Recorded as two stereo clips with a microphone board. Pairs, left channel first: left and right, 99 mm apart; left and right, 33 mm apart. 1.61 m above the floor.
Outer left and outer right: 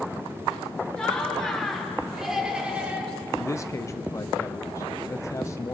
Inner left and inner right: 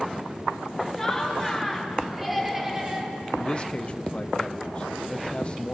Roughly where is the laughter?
Centre.